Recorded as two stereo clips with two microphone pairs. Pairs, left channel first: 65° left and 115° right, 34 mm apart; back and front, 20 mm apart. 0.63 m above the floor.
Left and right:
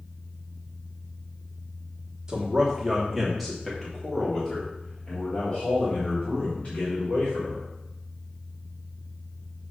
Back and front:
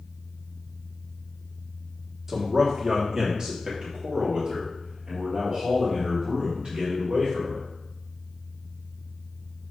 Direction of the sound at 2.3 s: 70° right.